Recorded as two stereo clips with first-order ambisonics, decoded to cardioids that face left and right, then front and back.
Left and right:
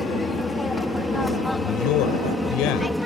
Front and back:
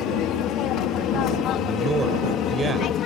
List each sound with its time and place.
0.0 s an aircraft: 10° left; by 3.1 s straight ahead
1.5 s a man speaking: 110° left